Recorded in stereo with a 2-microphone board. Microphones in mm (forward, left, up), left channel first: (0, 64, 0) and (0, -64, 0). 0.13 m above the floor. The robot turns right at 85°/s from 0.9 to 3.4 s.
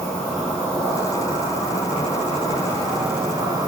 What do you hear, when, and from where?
0.0 s an insect: 10° left, 3 m; by 3.7 s 140° right, 3 m